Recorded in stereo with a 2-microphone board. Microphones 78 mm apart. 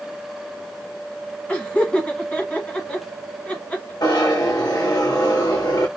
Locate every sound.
1.5 s laughter: 20° left (ahead or behind), 1.4 m
4.0 s a zipper: 60° left (ahead or behind), 1.7 m